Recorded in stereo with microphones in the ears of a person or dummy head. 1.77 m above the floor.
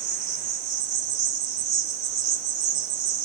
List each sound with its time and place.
0.0 s an insect: 45° right (ahead or behind), 1.5 m